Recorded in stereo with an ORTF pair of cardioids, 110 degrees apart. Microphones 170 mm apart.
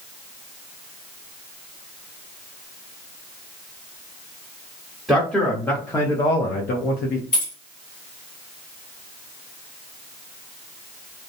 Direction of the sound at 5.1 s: Straight ahead.